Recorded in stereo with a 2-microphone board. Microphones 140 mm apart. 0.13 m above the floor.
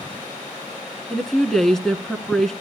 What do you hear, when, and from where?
1.1 s a woman speaking: 5° left (ahead or behind), 1.1 m